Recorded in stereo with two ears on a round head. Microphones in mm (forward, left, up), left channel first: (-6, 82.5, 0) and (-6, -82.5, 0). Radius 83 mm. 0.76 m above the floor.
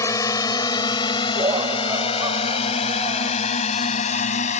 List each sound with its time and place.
0.0 s a drone: 20° left (ahead or behind); by 4.6 s 40° left (ahead or behind)
1.4 s laughter: 25° right (ahead or behind)